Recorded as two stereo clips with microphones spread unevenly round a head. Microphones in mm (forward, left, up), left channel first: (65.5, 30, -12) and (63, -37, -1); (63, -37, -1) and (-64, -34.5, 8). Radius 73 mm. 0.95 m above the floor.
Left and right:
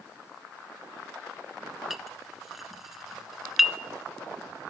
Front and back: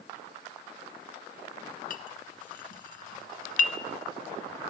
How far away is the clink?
About 0.5 m.